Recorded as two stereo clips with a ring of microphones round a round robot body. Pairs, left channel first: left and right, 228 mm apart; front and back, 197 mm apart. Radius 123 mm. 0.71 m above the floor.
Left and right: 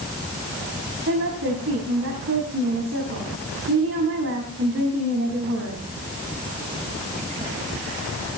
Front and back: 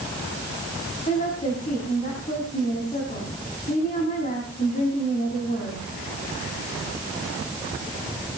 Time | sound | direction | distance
1.1 | a woman speaking | 60° right | 5.5 m